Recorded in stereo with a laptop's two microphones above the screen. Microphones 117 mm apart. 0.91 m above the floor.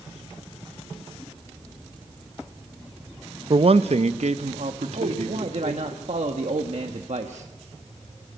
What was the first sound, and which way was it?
A man speaking, 45° right (ahead or behind).